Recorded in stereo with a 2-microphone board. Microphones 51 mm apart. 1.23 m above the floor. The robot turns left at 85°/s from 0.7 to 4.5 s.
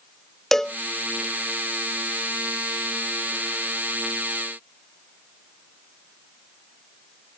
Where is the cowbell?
10° left (ahead or behind); by 0.8 s 5° left (ahead or behind).